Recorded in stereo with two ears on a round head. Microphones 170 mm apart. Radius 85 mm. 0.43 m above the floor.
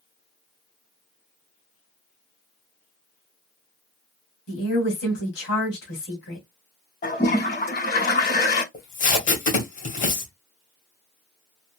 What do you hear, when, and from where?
4.5 s a woman speaking: 70° left (ahead or behind), 2.5 m
7.0 s a toilet flushing: 55° left (ahead or behind), 2.5 m
8.7 s tape being pulled: 45° left (ahead or behind), 2.0 m